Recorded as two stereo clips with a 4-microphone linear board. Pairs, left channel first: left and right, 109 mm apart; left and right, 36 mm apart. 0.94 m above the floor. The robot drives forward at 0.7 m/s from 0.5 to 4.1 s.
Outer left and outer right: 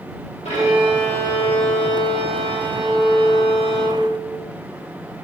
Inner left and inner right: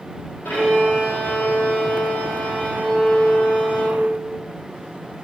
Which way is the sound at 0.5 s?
80° left.